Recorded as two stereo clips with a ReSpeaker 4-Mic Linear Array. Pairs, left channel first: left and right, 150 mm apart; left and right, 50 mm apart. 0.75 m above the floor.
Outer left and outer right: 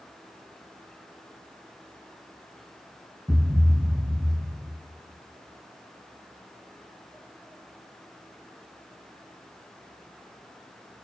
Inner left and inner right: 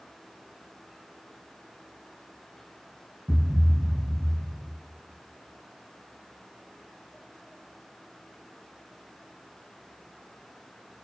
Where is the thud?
Centre (ahead or behind), 0.7 m.